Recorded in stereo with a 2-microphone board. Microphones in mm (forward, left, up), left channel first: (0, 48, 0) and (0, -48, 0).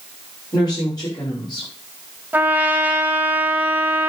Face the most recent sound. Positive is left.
turn(degrees=-15)  # may be behind; listen again after turning